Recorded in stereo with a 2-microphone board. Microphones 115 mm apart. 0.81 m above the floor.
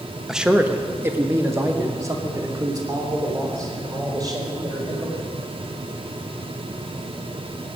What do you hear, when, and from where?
0.3 s a man speaking: 5° right (ahead or behind), 0.9 m; by 5.1 s 35° right (ahead or behind), 4.5 m